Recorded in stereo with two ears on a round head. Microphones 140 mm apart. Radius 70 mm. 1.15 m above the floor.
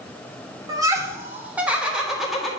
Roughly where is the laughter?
Right.